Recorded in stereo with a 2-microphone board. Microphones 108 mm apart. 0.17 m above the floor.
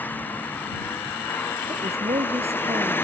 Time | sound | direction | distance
0.0 | a vehicle | 15° left (ahead or behind) | ?
1.7 | a woman speaking | 75° right (ahead or behind) | ?